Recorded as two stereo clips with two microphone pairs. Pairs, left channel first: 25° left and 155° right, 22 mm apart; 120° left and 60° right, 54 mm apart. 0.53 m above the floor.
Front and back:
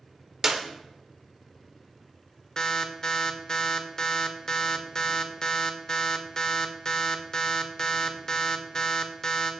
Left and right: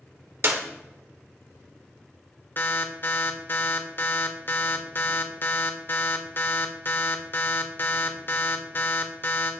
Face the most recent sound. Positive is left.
turn(degrees=85)